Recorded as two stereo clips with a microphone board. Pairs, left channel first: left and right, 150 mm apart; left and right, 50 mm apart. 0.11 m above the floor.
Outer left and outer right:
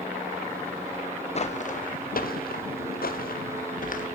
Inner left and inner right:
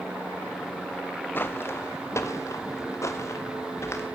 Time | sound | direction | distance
1.4 | footsteps | 45° left (ahead or behind) | 1.4 m